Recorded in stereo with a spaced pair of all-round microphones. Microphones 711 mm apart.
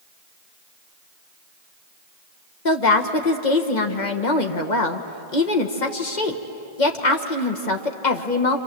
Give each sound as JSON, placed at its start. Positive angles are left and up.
{"t": 2.6, "sound": "a woman speaking", "side_deg": 80, "distance_m": 1.6}